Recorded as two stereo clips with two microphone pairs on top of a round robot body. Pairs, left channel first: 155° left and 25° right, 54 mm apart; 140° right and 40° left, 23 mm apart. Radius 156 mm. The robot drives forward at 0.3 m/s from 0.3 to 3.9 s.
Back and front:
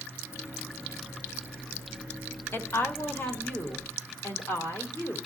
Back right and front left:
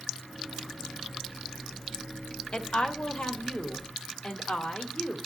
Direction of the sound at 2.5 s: 165° right.